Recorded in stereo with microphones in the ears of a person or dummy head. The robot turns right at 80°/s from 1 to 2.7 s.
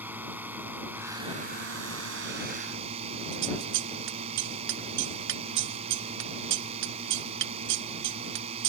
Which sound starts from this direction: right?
Scissors, at 3.3 s.